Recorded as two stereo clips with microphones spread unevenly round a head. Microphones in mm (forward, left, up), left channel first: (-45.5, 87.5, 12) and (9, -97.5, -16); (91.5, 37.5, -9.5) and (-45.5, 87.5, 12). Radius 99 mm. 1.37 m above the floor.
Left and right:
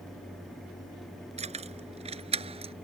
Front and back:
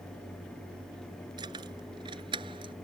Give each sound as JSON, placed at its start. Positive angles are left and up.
{"t": 1.4, "sound": "keys jangling", "azimuth_deg": -130}